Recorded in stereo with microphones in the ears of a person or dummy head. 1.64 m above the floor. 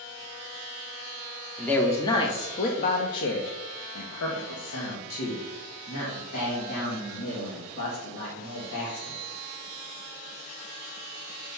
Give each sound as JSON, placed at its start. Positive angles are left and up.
{"t": 1.6, "sound": "a man speaking", "side_deg": 5, "distance_m": 0.9}